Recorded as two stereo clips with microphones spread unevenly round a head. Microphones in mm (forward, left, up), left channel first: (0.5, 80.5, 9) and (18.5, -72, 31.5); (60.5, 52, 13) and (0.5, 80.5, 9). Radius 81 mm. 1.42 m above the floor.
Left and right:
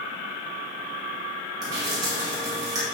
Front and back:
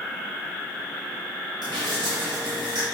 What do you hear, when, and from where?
1.6 s dripping: 150° right, 1.9 m